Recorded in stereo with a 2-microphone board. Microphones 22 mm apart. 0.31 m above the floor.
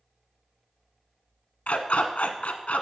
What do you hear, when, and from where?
1.7 s a dog barking: 80° left, 0.8 m